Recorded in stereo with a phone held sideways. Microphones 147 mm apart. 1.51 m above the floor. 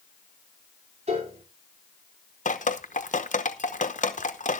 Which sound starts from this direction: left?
Dripping, at 2.5 s.